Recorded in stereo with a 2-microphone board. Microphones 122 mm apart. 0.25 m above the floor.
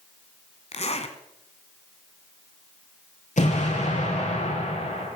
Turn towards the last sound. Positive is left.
turn(degrees=80)